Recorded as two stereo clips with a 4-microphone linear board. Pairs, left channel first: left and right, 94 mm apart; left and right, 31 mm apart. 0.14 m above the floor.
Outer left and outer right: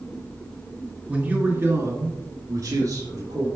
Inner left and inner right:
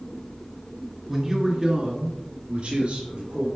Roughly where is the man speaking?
Centre.